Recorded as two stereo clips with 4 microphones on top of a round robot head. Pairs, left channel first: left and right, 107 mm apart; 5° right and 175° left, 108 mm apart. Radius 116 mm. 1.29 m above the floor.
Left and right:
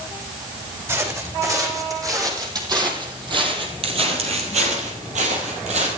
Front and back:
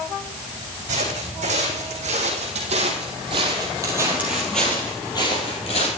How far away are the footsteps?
About 4 m.